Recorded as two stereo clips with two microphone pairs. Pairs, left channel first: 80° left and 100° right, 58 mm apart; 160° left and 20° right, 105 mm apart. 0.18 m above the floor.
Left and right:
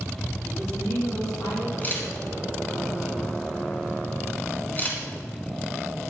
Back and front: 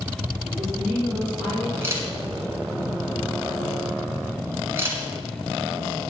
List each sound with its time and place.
0.5 s a woman speaking: 65° left, 4 m
1.8 s a camera shutter: 35° left, 2 m